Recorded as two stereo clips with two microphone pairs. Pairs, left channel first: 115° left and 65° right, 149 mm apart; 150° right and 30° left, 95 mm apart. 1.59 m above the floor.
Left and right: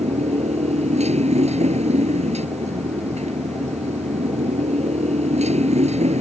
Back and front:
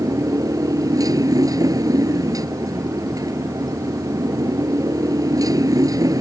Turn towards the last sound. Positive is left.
turn(degrees=-25)